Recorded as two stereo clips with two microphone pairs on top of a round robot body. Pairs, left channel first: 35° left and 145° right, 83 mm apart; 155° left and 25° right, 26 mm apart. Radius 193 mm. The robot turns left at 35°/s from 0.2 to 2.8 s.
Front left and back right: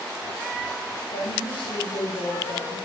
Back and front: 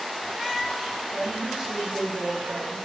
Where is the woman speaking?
50° left, 3.5 m; by 2.8 s 10° right, 3.5 m.